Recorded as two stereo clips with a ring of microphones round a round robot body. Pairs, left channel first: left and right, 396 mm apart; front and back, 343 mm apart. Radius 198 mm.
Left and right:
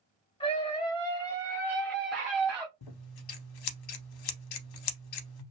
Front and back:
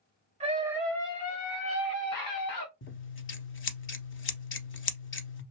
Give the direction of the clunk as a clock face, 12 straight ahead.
No clunk in this recording.